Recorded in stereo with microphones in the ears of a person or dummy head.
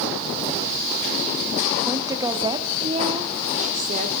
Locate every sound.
1.9 s a woman speaking: 10° right (ahead or behind), 1.4 m; by 4.1 s 40° right (ahead or behind), 2.5 m